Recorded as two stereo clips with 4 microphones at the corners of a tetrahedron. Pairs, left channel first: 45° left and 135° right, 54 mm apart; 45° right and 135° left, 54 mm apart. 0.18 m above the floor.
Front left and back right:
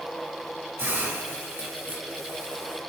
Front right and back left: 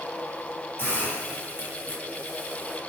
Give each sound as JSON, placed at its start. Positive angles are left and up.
{"t": 0.8, "sound": "a hiss", "azimuth_deg": -100, "distance_m": 3.5}